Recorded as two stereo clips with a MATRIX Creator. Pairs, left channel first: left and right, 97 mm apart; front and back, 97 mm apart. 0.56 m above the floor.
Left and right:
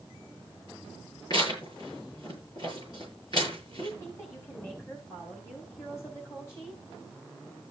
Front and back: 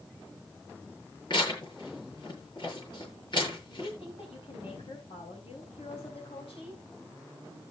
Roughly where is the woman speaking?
Ahead left.